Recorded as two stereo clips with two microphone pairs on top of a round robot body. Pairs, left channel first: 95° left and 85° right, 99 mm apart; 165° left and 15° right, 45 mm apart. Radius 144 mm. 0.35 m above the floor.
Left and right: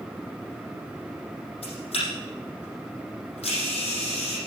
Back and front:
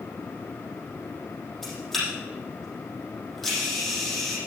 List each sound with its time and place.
1.6 s a camera shutter: 75° left, 6.5 m